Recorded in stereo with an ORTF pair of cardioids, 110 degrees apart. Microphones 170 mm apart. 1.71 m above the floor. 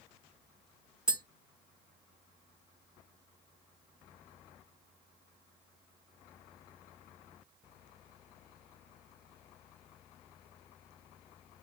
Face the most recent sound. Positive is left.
turn(degrees=-5)